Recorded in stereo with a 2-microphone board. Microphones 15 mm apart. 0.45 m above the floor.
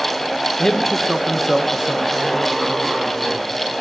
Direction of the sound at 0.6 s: 35° left (ahead or behind).